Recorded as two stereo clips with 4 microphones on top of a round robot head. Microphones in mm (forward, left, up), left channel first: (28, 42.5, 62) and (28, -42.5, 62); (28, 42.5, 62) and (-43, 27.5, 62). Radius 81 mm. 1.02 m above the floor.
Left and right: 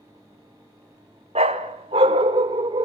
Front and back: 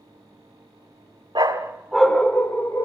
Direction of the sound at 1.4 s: 115° right.